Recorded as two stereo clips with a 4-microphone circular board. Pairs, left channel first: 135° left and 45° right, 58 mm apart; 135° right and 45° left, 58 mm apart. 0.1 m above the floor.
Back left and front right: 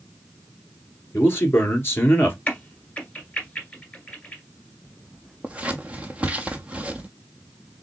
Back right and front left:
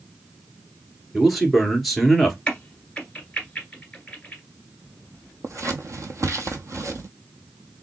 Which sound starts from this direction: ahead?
Scissors, at 5.4 s.